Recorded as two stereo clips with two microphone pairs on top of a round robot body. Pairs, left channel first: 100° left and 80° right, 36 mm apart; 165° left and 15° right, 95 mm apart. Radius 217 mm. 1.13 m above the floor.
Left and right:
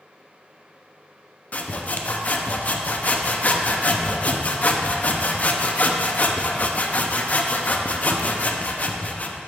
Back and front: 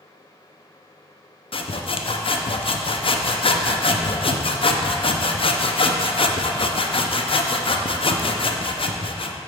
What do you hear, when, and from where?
1.5 s sawing: 155° left, 0.6 m